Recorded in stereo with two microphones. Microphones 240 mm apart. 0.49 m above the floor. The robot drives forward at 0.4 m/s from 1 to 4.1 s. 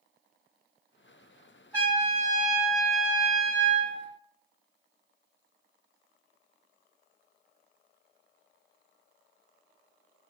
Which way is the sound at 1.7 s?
5° left (ahead or behind).